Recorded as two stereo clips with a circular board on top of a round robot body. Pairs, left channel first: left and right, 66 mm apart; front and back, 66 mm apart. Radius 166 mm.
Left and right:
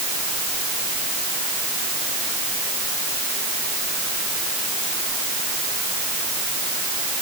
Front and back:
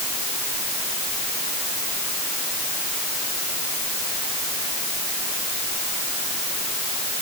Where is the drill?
No drill in this recording.